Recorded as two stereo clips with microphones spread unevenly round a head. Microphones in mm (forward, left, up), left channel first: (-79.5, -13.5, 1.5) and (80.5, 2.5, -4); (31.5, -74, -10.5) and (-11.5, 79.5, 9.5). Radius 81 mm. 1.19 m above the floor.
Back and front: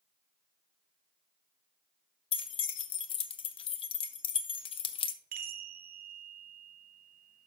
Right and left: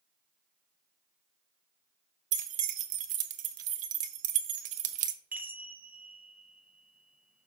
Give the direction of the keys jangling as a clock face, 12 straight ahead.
8 o'clock.